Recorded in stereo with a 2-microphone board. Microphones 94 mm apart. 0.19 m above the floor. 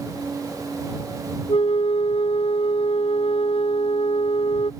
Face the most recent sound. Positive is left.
turn(degrees=80)